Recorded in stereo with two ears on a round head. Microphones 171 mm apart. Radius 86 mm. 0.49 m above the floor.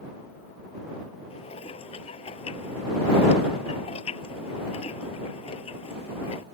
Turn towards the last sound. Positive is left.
turn(degrees=30)  # may be behind; listen again after turning